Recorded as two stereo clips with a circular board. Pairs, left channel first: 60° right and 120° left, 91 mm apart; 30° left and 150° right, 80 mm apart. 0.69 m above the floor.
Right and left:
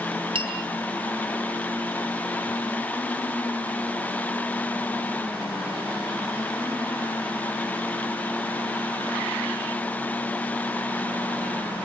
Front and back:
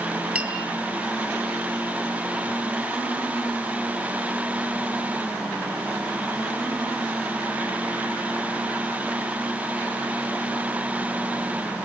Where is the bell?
140° left, 8.5 m.